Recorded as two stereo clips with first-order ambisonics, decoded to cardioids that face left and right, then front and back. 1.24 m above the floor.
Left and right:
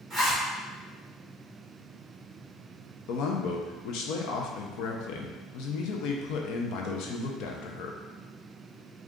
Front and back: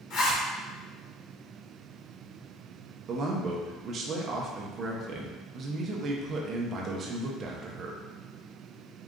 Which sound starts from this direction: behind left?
A man speaking, at 3.1 s.